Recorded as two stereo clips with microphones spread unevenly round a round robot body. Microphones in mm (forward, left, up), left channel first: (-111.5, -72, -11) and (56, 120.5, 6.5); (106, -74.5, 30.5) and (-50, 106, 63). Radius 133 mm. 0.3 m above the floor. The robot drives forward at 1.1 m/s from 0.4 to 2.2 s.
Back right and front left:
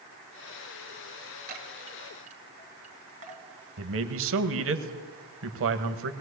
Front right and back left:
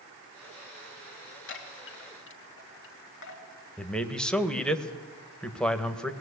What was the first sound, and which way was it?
A chime, 10° right.